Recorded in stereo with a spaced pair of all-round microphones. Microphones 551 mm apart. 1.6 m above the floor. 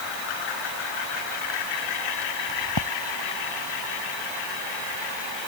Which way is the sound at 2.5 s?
45° left (ahead or behind).